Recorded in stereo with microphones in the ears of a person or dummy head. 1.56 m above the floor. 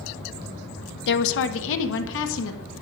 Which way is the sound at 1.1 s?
60° left (ahead or behind).